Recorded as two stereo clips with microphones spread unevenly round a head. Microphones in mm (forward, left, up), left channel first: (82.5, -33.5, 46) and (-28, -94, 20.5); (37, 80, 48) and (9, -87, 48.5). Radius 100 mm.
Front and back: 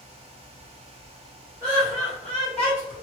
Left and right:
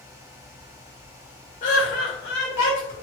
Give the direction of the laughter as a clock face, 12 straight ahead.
8 o'clock.